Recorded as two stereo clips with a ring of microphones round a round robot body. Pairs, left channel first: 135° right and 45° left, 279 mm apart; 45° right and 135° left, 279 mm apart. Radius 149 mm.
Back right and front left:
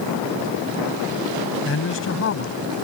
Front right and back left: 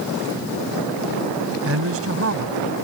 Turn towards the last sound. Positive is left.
turn(degrees=180)